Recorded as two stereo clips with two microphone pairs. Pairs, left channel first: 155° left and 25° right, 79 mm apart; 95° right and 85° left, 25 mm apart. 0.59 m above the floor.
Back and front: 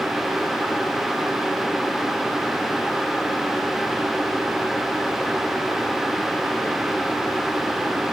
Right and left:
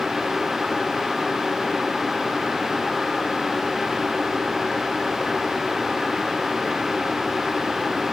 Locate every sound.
Only background noise.